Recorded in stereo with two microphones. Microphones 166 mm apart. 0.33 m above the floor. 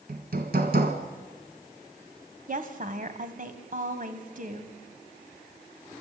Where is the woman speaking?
55° right (ahead or behind), 1.8 m.